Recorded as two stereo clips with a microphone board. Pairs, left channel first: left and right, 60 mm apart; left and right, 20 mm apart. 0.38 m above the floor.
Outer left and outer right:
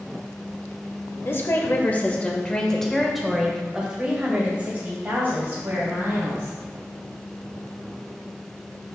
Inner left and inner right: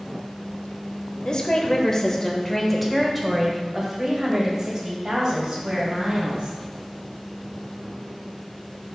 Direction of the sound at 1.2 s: 40° left (ahead or behind).